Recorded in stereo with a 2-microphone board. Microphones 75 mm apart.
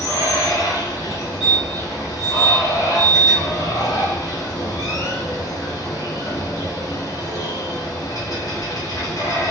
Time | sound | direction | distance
0.0 | running water | 55° left (ahead or behind) | 2.5 m
1.1 | a fire alarm | 5° right (ahead or behind) | 1.3 m